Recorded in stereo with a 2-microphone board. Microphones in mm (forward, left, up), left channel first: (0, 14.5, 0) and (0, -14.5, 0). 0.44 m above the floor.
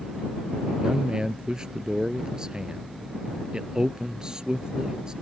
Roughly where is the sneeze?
I don't hear a sneeze.